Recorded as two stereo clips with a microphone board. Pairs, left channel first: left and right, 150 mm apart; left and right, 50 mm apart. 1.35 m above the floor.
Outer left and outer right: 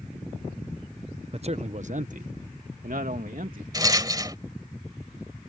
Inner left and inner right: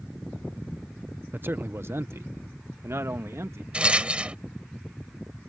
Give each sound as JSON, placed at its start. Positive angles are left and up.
{"t": 1.3, "sound": "a man speaking", "side_deg": -45}
{"t": 3.7, "sound": "a rattle", "side_deg": -25}